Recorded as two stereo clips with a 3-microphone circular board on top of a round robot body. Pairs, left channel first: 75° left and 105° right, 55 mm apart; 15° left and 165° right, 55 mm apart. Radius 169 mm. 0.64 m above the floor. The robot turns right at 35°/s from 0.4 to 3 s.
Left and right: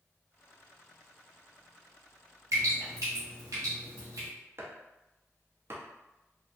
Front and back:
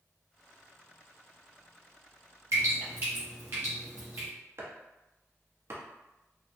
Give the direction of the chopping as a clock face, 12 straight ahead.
5 o'clock.